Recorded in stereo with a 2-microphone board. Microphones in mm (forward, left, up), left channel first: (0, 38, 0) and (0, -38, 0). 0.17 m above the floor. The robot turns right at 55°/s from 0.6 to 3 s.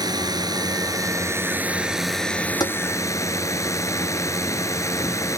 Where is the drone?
85° right; by 5.4 s 50° left.